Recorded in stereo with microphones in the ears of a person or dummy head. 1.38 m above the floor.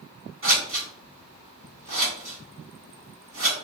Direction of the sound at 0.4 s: 45° right (ahead or behind).